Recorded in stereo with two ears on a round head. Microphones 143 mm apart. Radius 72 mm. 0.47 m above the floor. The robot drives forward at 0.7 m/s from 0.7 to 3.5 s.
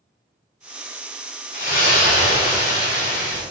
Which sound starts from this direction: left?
A splash, at 1.5 s.